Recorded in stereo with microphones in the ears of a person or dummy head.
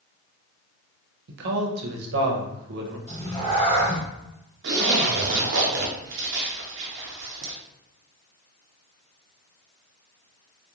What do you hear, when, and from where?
1.3 s a man speaking: 65° right (ahead or behind), 0.7 m
3.1 s a cat meowing: 20° left (ahead or behind), 1.6 m
4.6 s a zipper: 55° right (ahead or behind), 0.6 m